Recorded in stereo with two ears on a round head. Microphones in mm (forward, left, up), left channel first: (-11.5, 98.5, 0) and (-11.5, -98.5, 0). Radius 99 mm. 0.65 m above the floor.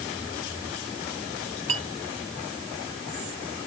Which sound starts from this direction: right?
A clink, at 1.7 s.